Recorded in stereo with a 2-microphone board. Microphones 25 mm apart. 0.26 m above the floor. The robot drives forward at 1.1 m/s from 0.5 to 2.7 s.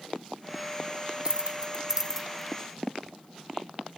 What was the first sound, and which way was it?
Keys jangling, 25° right (ahead or behind).